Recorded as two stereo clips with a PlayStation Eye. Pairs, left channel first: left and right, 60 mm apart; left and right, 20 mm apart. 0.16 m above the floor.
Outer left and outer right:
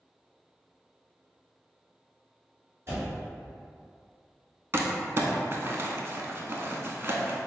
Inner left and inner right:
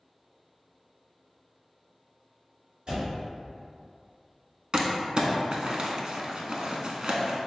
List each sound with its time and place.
2.9 s a door slam: 45° right (ahead or behind), 1.8 m
4.7 s crumpling: 45° right (ahead or behind), 0.5 m